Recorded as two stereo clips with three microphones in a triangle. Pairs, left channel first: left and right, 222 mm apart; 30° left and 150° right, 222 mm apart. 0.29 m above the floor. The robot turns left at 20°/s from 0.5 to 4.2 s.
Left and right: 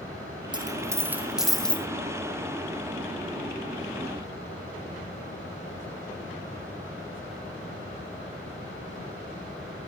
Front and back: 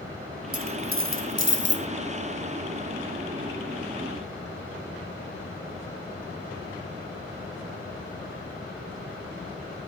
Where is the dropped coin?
160° right, 3 m; by 1.9 s 175° left, 3 m.